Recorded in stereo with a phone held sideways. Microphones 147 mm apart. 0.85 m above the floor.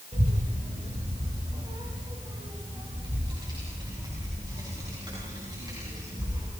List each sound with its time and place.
0.1 s a child speaking: 50° right (ahead or behind), 3.5 m; by 6.5 s 25° right (ahead or behind), 7 m